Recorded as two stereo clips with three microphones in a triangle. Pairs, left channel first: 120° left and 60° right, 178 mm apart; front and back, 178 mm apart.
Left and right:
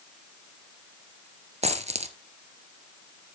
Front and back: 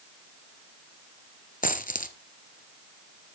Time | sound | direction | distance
1.6 | a dropped coin | 20° right | 1.0 m